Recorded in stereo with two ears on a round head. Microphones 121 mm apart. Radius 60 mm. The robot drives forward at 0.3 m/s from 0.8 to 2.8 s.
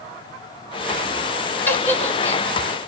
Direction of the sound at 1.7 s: 15° left (ahead or behind).